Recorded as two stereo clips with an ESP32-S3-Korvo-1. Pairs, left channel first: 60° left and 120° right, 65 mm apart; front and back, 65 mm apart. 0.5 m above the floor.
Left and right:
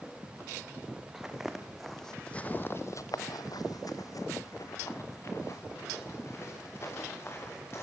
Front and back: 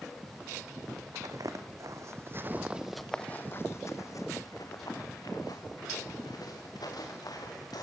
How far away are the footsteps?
About 3 m.